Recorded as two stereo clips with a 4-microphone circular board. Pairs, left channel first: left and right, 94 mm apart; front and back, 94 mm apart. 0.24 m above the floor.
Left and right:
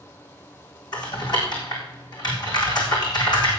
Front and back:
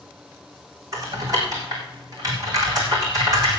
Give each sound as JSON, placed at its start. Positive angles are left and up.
{"t": 0.9, "sound": "typing on a keyboard", "azimuth_deg": 130, "distance_m": 4.0}